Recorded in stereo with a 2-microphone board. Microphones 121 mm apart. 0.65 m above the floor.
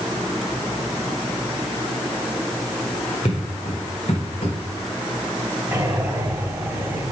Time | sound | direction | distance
3.2 | footsteps | 60° left (ahead or behind) | 5 m
5.7 | breathing | 20° right (ahead or behind) | 4 m